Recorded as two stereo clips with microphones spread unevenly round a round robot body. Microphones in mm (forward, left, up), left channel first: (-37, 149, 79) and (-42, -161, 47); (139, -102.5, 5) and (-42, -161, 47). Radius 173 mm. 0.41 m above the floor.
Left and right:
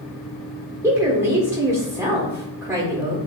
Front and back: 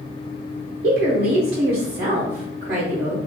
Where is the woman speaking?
165° right, 1.1 m.